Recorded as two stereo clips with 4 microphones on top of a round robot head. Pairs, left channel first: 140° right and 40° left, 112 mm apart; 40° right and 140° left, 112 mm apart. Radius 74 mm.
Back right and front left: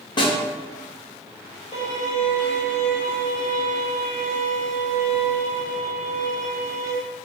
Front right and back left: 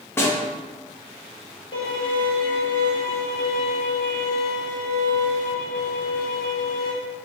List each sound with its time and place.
0.2 s a snare drum: 105° right, 0.8 m
1.7 s a violin: 95° right, 1.2 m